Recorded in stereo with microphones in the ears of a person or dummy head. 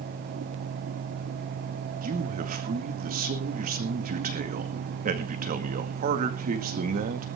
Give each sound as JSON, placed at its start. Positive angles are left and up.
{"t": 2.0, "sound": "a man speaking", "side_deg": -35, "distance_m": 2.0}